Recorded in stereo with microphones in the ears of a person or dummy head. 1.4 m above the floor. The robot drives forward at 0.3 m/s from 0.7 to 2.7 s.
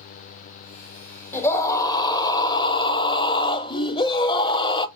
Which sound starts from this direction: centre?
A scream, at 1.3 s.